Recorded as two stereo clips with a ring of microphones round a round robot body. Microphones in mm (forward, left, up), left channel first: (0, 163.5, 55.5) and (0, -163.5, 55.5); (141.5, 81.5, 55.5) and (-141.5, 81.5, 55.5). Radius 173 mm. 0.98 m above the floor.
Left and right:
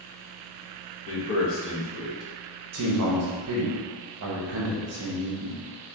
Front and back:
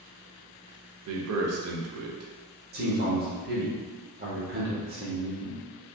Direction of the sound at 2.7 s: 125° right.